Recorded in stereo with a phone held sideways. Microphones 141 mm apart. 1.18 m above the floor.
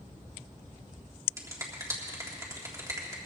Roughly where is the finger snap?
Right.